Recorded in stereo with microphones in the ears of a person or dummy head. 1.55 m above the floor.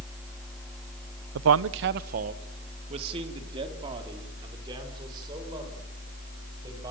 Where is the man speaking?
70° right (ahead or behind), 0.8 m; by 6.9 s 25° right (ahead or behind), 8.5 m.